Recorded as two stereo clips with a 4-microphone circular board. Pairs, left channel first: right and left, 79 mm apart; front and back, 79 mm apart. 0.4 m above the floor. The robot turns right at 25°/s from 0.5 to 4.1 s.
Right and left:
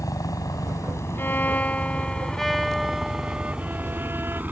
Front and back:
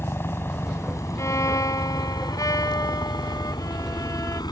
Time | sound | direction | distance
0.0 | a helicopter | 55° right | ?
1.2 | a violin | 35° right | ?